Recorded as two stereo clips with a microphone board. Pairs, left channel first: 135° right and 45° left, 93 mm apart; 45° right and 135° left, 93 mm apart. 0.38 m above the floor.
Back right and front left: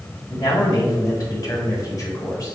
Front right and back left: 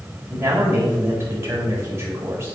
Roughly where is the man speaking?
Behind.